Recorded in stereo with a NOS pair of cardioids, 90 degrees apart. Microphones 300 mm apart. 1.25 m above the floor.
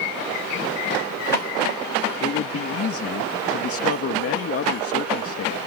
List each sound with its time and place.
2.2 s a man speaking: 50° left